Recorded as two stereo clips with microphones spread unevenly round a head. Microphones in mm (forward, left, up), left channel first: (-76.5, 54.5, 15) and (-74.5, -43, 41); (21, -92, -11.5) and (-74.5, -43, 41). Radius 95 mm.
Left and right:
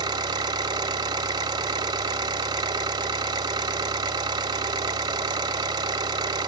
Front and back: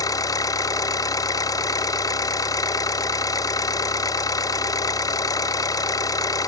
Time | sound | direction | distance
0.0 | an engine running | 100° right | 1.4 m